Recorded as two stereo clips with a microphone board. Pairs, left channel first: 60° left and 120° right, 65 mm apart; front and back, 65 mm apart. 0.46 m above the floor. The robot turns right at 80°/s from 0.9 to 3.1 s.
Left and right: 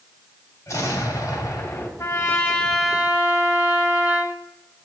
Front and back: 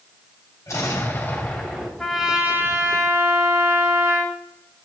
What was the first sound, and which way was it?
An explosion, 35° left.